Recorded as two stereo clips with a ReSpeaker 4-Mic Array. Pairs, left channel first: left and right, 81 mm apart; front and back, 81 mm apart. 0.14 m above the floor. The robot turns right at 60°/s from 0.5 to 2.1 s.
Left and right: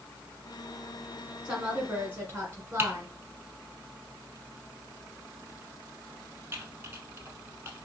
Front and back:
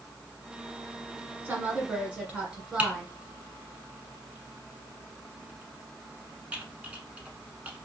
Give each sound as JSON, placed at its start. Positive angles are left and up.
{"t": 1.4, "sound": "a woman speaking", "azimuth_deg": -155, "distance_m": 1.5}
{"t": 2.8, "sound": "typing on a keyboard", "azimuth_deg": -120, "distance_m": 0.7}